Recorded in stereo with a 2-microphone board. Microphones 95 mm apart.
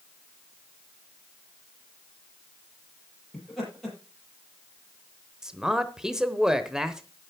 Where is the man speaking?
5° right (ahead or behind), 0.8 m.